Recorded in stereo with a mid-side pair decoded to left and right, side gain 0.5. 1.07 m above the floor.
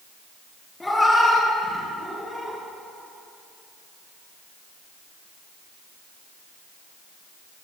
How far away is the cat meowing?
About 3 m.